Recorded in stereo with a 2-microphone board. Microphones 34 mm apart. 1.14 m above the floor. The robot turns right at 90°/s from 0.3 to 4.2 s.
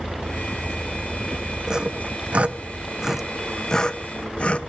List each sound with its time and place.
1.7 s sawing: 20° right (ahead or behind), 0.6 m; by 4.6 s 40° left (ahead or behind), 0.6 m